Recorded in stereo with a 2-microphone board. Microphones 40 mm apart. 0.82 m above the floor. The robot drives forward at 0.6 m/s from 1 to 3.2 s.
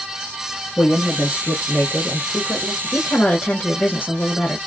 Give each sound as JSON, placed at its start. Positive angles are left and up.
{"t": 0.8, "sound": "a woman speaking", "side_deg": 40, "distance_m": 1.0}
{"t": 2.8, "sound": "a woman speaking", "side_deg": 50, "distance_m": 0.7}